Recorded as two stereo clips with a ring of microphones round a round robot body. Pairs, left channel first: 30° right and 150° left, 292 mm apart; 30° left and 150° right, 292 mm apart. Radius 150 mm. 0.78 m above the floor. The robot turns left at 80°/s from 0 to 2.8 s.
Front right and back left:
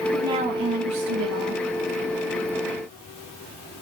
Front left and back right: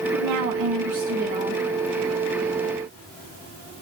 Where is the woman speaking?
120° right, 2 m; by 1.6 s 120° left, 2 m.